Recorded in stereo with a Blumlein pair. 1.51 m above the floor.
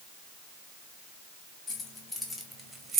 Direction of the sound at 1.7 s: 20° left.